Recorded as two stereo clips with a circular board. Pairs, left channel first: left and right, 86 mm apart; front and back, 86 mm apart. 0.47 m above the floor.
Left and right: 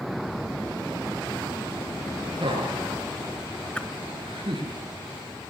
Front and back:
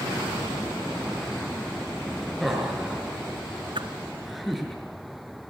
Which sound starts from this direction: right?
Laughter, at 2.4 s.